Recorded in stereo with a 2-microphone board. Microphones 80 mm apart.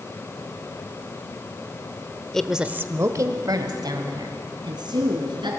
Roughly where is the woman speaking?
Centre.